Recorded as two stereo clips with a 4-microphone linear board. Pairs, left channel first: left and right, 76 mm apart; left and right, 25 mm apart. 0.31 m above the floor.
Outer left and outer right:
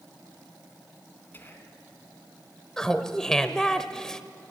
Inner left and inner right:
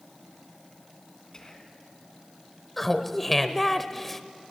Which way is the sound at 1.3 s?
25° left (ahead or behind).